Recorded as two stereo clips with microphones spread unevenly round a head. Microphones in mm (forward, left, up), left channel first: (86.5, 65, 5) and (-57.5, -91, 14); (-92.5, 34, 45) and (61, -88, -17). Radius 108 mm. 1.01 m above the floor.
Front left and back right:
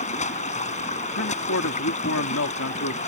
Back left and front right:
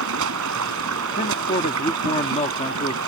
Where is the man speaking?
80° left.